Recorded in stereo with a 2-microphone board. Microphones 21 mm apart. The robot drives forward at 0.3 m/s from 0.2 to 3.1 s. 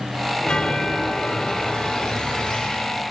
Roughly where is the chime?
Left.